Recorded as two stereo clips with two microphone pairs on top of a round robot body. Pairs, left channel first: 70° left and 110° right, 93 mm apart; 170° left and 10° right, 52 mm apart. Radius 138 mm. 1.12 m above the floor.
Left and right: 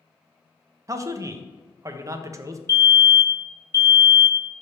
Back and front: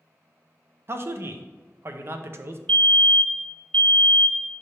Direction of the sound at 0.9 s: 50° right.